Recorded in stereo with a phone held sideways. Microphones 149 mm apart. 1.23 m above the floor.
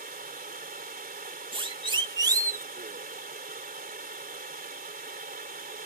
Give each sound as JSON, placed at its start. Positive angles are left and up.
{"t": 0.0, "sound": "running water", "side_deg": -75}
{"t": 1.5, "sound": "a siren", "side_deg": -35}